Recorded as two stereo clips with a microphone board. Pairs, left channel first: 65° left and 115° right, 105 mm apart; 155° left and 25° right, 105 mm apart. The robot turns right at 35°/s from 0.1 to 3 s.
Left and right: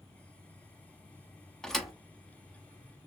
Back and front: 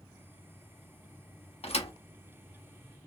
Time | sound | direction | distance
1.6 | a thud | 150° left | 0.8 m